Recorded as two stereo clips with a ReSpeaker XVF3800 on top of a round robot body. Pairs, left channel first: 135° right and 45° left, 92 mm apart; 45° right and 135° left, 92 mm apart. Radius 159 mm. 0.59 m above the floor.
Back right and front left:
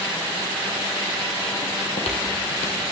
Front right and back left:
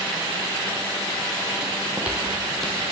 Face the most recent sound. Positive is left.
turn(degrees=-125)